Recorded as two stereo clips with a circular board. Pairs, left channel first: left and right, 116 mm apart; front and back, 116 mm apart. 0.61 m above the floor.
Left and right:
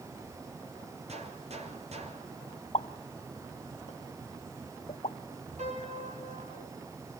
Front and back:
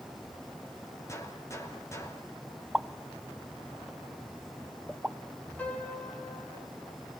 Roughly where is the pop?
Left.